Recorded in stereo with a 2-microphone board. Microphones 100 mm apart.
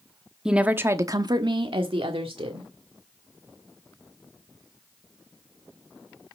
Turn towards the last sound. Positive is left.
turn(degrees=-75)  # may be behind; listen again after turning